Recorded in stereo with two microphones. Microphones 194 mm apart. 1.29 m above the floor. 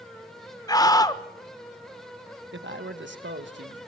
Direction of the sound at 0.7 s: 20° left (ahead or behind).